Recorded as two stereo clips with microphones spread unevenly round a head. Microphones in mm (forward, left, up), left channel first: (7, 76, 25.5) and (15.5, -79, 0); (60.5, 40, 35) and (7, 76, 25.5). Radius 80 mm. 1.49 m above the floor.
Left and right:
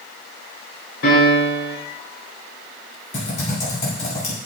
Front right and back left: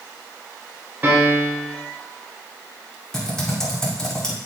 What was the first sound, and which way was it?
A piano, 85° left.